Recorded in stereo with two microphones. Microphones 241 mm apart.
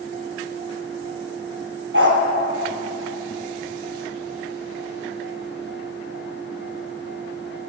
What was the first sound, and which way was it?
A dog barking, 55° right (ahead or behind).